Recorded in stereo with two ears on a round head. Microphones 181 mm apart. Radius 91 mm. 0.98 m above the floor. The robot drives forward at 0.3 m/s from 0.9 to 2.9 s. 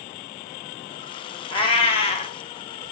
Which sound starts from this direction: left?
A cat meowing, at 1.5 s.